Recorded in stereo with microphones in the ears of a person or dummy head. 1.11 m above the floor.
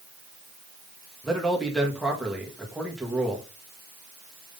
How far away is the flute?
I don't hear a flute.